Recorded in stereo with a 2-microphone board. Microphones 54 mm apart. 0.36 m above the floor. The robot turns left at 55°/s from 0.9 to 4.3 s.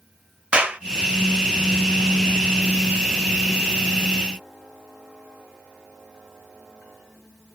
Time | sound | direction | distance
0.5 | a clap | 20° right (ahead or behind) | 1.0 m